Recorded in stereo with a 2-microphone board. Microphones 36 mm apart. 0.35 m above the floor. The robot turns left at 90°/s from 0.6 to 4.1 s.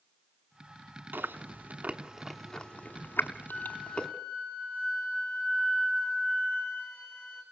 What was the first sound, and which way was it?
Chewing, 70° right (ahead or behind).